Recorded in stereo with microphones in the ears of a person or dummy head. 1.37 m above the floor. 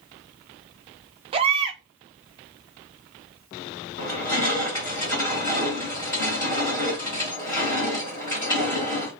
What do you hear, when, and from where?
1.3 s a baby crying: 30° right (ahead or behind), 0.5 m
4.0 s crushing: 10° left (ahead or behind), 1.5 m